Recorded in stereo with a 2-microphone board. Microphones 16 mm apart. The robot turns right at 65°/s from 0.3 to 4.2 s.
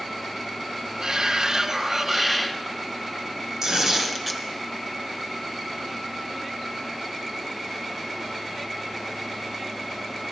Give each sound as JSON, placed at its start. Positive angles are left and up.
{"t": 1.0, "sound": "a shout", "azimuth_deg": -100, "distance_m": 1.2}
{"t": 3.6, "sound": "tearing paper", "azimuth_deg": -50, "distance_m": 2.0}